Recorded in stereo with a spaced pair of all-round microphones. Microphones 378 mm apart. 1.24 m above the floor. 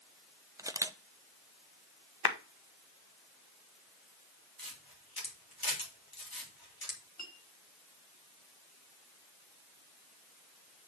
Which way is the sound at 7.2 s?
45° left (ahead or behind).